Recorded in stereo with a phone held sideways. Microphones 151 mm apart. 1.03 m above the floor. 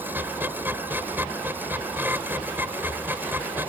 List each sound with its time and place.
0.0 s a machine running: 15° right (ahead or behind)